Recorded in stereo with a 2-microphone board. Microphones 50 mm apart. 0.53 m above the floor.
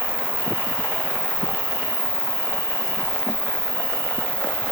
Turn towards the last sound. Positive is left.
turn(degrees=85)